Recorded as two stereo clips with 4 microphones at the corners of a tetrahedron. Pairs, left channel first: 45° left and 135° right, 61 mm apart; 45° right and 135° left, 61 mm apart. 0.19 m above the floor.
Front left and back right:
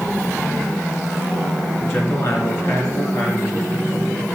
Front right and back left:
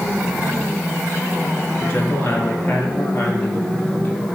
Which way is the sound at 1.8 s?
10° left.